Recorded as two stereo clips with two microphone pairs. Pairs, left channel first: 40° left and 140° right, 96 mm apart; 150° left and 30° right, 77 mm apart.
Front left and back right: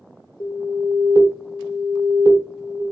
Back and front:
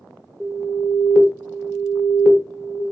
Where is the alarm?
45° left, 1.5 m.